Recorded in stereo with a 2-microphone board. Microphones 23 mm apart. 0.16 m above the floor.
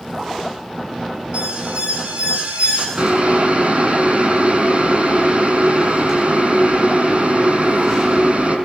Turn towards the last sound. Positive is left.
turn(degrees=-60)  # may be behind; listen again after turning